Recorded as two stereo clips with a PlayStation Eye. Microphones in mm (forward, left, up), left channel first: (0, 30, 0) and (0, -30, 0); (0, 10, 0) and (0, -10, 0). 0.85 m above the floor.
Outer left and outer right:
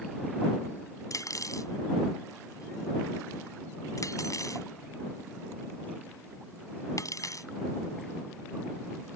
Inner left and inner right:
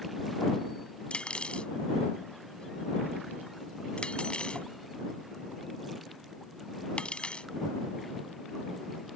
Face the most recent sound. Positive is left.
turn(degrees=70)  # may be behind; listen again after turning